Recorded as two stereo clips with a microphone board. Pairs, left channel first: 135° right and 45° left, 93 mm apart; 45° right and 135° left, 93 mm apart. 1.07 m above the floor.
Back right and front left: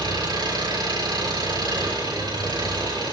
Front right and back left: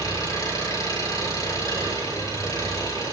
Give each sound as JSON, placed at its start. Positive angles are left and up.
{"t": 0.0, "sound": "an engine running", "azimuth_deg": 5, "distance_m": 7.0}